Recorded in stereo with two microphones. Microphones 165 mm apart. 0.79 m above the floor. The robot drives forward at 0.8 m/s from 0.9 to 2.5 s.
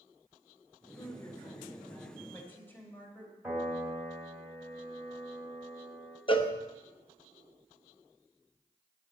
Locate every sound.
1.0 s a woman speaking: 20° left (ahead or behind), 2 m; by 3.3 s 10° left (ahead or behind), 3.5 m
3.4 s a piano: 10° right (ahead or behind), 3.5 m
6.3 s a cowbell: 35° left (ahead or behind), 0.8 m